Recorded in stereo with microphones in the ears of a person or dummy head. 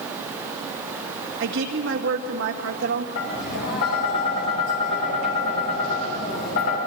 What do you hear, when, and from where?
1.4 s a woman speaking: 65° right (ahead or behind), 2.0 m
3.1 s tapping: 60° left (ahead or behind), 6.5 m